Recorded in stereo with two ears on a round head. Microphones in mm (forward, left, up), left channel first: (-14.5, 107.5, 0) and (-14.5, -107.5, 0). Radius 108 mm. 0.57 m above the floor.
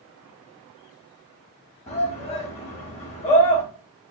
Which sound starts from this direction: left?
A shout, at 1.9 s.